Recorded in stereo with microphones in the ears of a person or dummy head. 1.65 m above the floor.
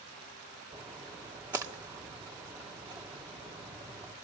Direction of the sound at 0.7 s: 15° right (ahead or behind).